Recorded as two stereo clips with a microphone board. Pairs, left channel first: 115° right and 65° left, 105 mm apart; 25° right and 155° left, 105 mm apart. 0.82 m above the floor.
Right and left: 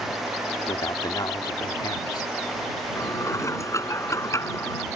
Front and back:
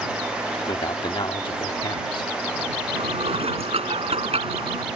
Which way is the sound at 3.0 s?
175° right.